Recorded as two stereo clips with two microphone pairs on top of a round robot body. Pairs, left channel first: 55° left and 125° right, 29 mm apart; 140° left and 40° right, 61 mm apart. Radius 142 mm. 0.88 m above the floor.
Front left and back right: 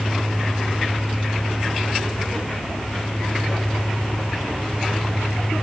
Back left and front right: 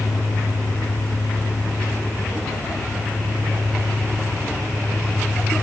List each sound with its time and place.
Only background noise.